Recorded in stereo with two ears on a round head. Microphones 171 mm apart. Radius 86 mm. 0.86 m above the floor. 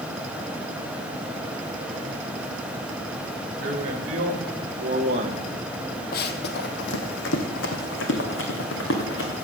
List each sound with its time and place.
3.6 s a man speaking: 45° right (ahead or behind), 3 m; by 5.5 s 30° right (ahead or behind), 1.5 m
6.1 s running footsteps: 50° left (ahead or behind), 1.3 m; by 9.4 s 65° left (ahead or behind), 3.5 m